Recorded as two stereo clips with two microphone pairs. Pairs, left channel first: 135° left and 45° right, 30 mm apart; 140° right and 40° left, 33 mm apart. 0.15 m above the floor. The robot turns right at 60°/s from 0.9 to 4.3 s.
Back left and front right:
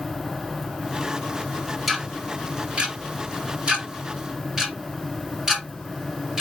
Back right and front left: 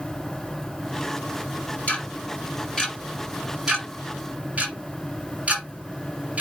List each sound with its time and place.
1.9 s ticking: 130° right, 2 m; by 6.4 s 15° left, 2 m